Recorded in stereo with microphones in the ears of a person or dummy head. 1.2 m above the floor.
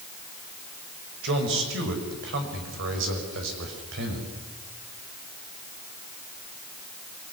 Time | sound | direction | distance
1.2 | a man speaking | 65° right (ahead or behind) | 5.5 m